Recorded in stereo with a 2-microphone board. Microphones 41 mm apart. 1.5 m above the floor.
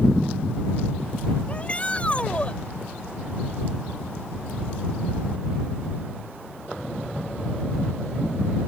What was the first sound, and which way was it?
A shout, 30° left (ahead or behind).